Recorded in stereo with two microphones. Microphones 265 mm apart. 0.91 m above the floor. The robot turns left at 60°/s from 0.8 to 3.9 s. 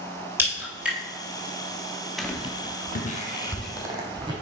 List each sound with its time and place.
0.4 s a crack: 10° right (ahead or behind), 2.5 m; by 1.0 s 5° left (ahead or behind), 2.5 m
2.2 s footsteps: centre (ahead or behind), 0.9 m; by 4.3 s 15° right (ahead or behind), 2 m